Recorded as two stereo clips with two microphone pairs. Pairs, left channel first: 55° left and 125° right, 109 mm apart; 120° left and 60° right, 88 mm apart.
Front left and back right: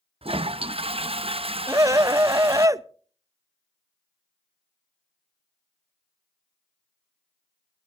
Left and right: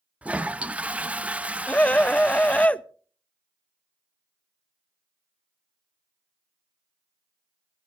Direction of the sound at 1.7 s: 170° right.